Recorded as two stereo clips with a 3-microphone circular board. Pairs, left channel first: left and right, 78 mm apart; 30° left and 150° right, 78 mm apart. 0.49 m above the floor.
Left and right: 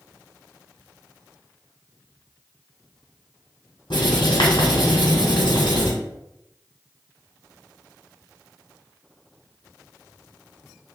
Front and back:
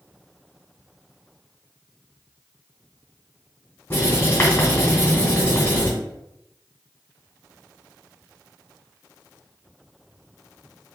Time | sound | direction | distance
3.9 | writing | 85° left | 1.9 m